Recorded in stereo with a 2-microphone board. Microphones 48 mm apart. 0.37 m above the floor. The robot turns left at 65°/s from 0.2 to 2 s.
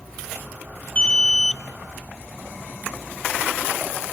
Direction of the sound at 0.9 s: 55° left.